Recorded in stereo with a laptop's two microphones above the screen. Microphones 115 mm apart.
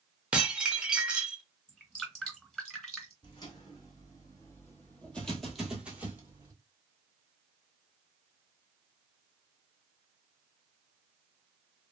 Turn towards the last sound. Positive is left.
turn(degrees=-25)  # may be behind; listen again after turning